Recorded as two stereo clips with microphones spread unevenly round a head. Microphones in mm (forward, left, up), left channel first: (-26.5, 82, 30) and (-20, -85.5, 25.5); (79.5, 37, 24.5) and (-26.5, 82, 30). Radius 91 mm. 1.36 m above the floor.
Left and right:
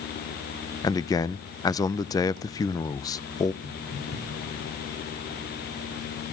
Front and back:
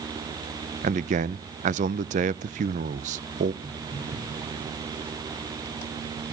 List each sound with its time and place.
0.8 s a man speaking: 160° left, 0.5 m
3.6 s footsteps: 100° left, 9 m; by 4.6 s 95° left, 8.5 m